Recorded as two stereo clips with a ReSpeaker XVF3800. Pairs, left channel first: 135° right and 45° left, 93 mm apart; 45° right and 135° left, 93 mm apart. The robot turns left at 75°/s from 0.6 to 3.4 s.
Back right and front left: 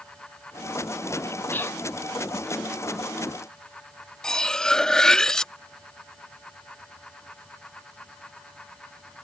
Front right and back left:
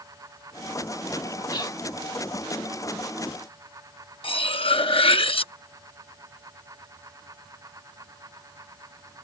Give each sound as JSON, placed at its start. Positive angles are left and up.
{"t": 1.5, "sound": "whispering", "azimuth_deg": -70}
{"t": 4.2, "sound": "cutlery clinking", "azimuth_deg": -55}